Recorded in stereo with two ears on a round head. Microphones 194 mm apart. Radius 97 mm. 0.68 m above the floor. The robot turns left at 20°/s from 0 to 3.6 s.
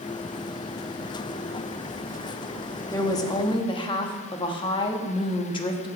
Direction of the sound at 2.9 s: 15° left (ahead or behind).